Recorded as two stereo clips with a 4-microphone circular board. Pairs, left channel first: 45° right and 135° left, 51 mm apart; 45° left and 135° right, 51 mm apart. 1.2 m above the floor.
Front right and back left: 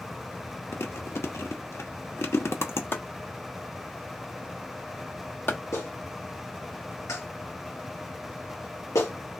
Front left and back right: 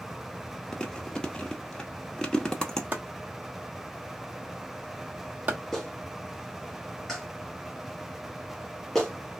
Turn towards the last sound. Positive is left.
turn(degrees=-40)